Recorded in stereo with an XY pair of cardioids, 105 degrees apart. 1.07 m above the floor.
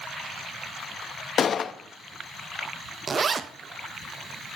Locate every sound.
1.4 s a gunshot: 50° left, 0.6 m
3.1 s a zipper: 35° right, 0.6 m